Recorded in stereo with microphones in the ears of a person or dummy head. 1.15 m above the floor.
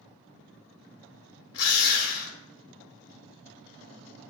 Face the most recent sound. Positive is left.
turn(degrees=75)  # may be behind; listen again after turning